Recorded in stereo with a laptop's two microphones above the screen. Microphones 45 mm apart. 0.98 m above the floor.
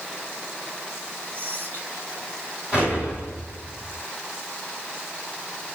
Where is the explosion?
25° right (ahead or behind), 3.5 m.